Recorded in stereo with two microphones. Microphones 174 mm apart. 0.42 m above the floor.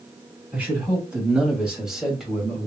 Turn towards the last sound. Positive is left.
turn(degrees=0)  # may be behind; listen again after turning